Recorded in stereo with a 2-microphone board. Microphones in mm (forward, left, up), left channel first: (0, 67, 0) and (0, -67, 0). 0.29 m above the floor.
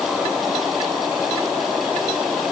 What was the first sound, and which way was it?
Only background noise.